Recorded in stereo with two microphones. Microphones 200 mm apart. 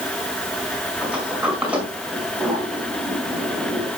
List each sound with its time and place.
1.0 s a sliding door: 5° right (ahead or behind), 5 m